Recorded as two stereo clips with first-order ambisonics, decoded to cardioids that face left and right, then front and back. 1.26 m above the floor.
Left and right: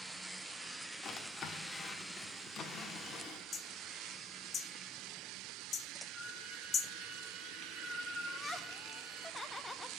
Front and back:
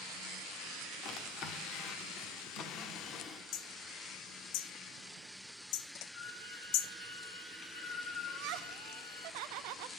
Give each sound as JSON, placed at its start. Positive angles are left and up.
{"t": 1.0, "sound": "a drawer", "azimuth_deg": 35, "distance_m": 1.1}
{"t": 3.5, "sound": "hammering", "azimuth_deg": 25, "distance_m": 0.6}
{"t": 6.1, "sound": "a violin", "azimuth_deg": 5, "distance_m": 5.0}
{"t": 8.3, "sound": "laughter", "azimuth_deg": 170, "distance_m": 0.6}